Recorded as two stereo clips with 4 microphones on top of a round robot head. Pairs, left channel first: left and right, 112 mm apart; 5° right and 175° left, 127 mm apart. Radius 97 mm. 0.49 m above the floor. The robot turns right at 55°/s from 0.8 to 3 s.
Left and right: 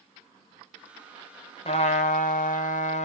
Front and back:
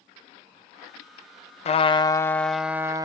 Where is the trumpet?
35° left, 0.8 m; by 3.0 s 110° left, 0.8 m.